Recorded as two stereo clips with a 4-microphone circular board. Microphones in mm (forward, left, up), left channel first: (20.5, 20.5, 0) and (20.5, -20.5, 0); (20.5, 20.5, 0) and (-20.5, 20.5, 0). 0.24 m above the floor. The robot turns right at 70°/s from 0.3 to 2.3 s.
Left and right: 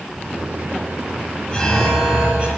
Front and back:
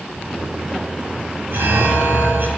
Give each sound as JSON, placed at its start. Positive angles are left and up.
{"t": 1.5, "sound": "an alarm", "azimuth_deg": 160, "distance_m": 3.0}